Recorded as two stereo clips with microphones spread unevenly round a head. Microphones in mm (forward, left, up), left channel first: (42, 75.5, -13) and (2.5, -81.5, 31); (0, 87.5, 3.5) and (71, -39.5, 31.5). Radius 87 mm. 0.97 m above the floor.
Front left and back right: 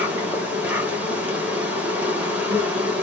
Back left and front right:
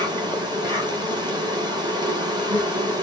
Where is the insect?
5° right, 1.4 m.